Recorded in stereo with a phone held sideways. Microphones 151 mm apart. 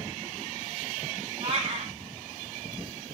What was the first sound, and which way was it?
A cat meowing, 45° right (ahead or behind).